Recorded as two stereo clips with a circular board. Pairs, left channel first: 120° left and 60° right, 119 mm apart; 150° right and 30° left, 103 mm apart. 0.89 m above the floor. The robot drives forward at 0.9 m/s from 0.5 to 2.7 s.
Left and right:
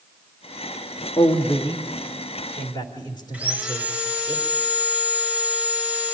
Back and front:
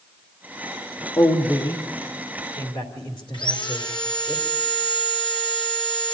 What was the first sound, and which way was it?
A man speaking, 165° left.